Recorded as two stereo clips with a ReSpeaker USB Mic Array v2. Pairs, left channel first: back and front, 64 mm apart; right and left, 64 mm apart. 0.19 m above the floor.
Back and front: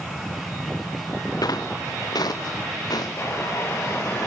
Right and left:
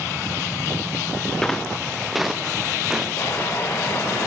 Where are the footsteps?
170° right, 0.8 m; by 3.1 s 175° left, 1.6 m.